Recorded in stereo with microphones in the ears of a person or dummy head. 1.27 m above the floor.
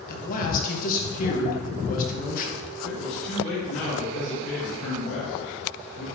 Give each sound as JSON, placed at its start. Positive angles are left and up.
{"t": 0.1, "sound": "a man speaking", "side_deg": 50, "distance_m": 1.3}
{"t": 2.8, "sound": "a man speaking", "side_deg": 40, "distance_m": 2.5}